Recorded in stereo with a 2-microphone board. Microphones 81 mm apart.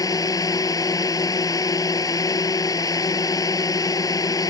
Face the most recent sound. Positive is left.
turn(degrees=50)  # may be behind; listen again after turning